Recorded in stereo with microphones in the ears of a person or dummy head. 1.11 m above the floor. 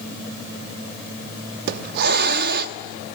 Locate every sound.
1.7 s a hiss: 60° right (ahead or behind), 0.9 m